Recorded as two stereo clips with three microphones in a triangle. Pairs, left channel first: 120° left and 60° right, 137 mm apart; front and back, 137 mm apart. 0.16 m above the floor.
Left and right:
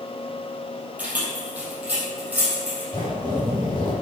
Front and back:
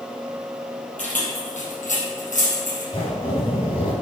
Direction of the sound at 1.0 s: 20° left.